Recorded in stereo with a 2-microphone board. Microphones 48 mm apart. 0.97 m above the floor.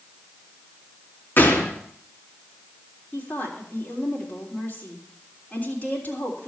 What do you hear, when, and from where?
1.4 s a gunshot: 45° left (ahead or behind), 1.9 m
3.1 s a woman speaking: 40° left (ahead or behind), 3 m